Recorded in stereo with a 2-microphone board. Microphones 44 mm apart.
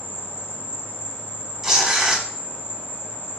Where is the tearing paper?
10° right (ahead or behind), 0.9 m.